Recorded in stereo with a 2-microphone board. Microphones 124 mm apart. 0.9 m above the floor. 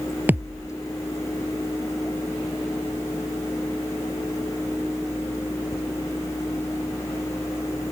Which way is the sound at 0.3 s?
15° right (ahead or behind).